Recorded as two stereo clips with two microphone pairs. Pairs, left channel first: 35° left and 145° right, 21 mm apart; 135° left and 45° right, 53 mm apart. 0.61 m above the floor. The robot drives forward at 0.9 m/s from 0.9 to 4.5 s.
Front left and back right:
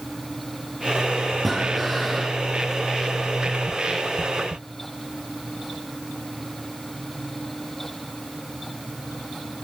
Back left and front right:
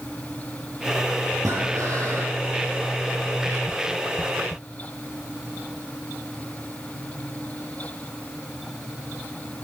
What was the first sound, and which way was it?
Breathing, 45° right.